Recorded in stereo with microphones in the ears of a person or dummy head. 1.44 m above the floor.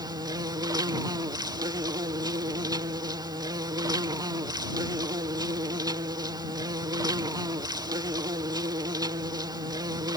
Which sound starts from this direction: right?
An insect, at 0.0 s.